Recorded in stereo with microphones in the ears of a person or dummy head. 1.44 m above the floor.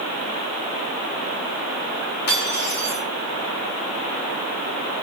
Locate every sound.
2.3 s cutlery clinking: 55° left (ahead or behind), 7 m